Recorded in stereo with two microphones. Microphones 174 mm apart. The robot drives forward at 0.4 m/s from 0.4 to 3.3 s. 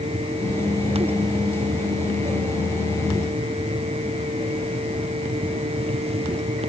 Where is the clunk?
No clunk in this recording.